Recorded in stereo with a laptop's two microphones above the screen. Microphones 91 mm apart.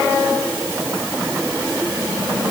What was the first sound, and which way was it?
Only background noise.